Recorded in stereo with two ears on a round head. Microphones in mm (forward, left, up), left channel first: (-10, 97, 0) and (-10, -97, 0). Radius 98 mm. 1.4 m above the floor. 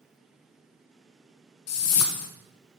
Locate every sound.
1.7 s a whoosh: 80° left, 0.8 m